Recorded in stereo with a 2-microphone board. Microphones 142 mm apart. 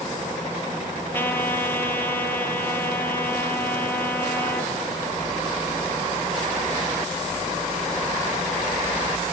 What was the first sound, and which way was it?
A trumpet, 15° left (ahead or behind).